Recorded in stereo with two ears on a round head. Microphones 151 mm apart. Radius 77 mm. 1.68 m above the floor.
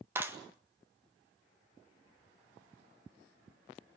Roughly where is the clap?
Centre.